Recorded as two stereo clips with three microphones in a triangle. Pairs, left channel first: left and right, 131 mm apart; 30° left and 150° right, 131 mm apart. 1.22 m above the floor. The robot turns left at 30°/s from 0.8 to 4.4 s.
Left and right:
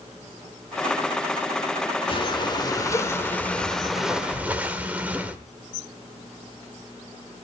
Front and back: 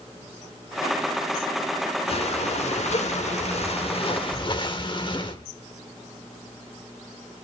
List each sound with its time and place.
2.1 s breathing: 55° left, 1.3 m; by 5.4 s 15° right, 1.3 m